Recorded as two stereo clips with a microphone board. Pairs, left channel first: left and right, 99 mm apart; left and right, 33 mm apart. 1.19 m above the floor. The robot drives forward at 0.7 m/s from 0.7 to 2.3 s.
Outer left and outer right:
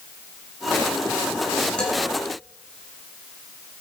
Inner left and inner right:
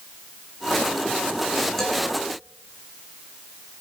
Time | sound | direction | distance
1.8 | a man speaking | 10° left (ahead or behind) | 9 m